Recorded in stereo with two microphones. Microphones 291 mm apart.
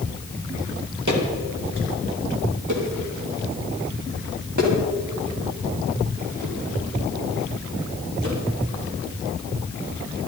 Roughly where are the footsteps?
Right.